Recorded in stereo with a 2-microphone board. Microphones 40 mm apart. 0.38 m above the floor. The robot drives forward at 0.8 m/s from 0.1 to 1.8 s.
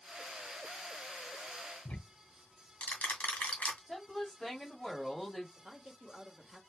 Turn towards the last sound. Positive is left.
turn(degrees=-20)  # may be behind; listen again after turning